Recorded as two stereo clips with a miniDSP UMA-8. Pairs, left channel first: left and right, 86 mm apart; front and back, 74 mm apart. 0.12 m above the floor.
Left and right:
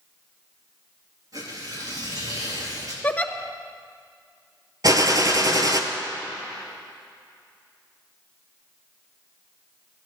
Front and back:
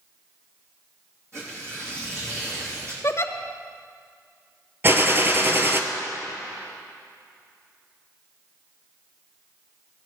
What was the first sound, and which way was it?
Tearing paper, 135° right.